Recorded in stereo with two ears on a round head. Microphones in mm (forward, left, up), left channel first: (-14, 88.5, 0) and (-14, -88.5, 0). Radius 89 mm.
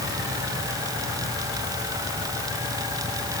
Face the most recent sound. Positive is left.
No sound to turn to.